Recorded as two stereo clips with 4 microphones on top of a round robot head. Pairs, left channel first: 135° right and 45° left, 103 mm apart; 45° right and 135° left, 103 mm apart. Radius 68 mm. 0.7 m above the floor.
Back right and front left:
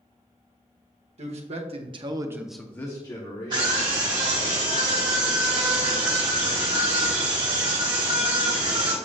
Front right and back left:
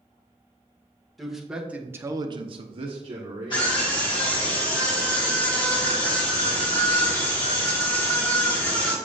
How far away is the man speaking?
About 1.9 m.